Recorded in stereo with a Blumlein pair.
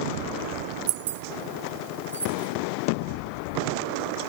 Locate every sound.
0.9 s keys jangling: 45° right, 0.7 m; by 2.5 s 80° right, 2 m